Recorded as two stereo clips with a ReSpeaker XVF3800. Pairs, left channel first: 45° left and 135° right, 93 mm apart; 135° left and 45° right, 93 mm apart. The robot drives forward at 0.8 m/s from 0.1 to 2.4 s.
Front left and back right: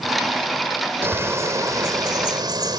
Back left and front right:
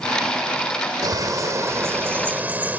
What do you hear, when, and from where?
1.0 s a bird: 80° right; by 2.8 s 110° right